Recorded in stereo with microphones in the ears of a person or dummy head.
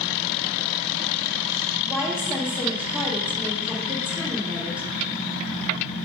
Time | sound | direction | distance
1.9 | a woman speaking | 10° right (ahead or behind) | 1.9 m